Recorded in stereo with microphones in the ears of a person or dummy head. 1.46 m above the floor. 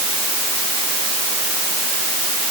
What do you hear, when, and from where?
Only background noise.